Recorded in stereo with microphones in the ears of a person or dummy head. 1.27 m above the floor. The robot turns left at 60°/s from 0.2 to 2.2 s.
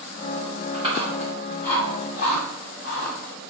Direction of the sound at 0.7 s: 35° right (ahead or behind).